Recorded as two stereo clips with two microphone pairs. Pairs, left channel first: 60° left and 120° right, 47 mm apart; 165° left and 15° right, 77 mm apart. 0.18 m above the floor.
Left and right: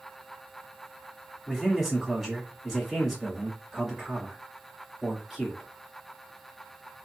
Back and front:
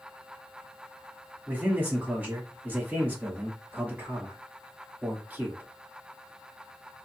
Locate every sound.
1.5 s a man speaking: 40° right, 1.2 m